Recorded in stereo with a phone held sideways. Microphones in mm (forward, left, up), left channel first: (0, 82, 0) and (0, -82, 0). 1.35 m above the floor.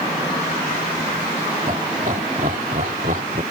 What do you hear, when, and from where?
1.7 s laughter: 50° right (ahead or behind); by 3.4 s 60° right (ahead or behind)